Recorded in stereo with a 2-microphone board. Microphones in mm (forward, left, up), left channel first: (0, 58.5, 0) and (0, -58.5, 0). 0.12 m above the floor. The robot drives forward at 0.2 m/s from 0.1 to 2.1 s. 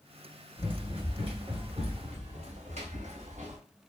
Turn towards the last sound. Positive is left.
turn(degrees=-85)